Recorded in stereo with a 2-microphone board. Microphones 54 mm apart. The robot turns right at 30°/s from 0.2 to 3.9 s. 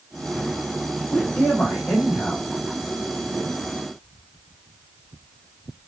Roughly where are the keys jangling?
No keys jangling in this recording.